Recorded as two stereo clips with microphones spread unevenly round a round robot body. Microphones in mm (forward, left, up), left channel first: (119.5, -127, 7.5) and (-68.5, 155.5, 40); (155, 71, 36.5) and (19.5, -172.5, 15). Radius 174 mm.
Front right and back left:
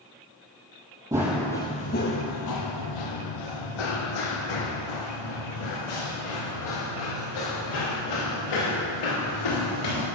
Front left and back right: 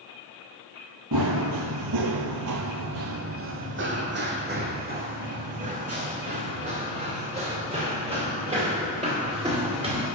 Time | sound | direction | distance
1.1 | running footsteps | 160° right | 0.8 m